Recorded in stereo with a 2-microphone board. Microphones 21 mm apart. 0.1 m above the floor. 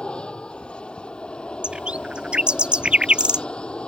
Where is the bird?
50° right (ahead or behind).